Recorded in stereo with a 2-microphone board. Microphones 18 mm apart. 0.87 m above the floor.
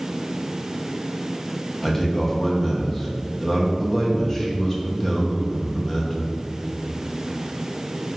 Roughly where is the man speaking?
Centre.